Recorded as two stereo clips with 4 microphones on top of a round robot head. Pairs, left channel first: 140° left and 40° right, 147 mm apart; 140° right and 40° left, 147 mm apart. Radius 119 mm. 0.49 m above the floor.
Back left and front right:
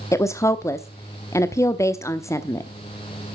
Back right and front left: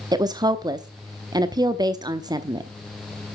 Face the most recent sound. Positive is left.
turn(degrees=85)